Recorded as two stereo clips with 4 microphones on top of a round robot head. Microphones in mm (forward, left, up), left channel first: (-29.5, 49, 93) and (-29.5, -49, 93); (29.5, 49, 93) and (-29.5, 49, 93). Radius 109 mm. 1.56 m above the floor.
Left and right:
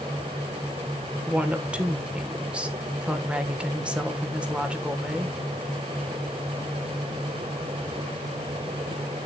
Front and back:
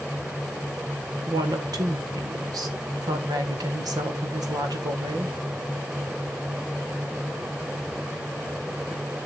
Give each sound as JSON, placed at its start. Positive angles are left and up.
{"t": 1.3, "sound": "a woman speaking", "azimuth_deg": -170, "distance_m": 1.7}